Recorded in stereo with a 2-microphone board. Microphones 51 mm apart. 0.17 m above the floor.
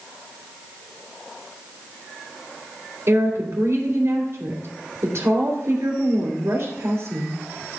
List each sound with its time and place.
3.1 s a woman speaking: 45° right (ahead or behind), 2.5 m